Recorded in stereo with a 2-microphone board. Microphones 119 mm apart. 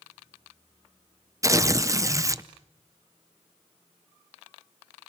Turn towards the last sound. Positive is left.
turn(degrees=-25)  # may be behind; listen again after turning